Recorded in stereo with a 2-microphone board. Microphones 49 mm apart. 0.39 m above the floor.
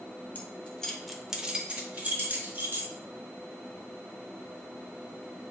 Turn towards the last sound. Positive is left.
turn(degrees=-40)  # may be behind; listen again after turning